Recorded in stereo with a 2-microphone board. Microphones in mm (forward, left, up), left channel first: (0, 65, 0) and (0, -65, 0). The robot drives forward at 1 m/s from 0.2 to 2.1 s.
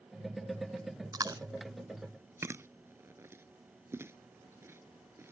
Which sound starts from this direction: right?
Chewing, at 1.1 s.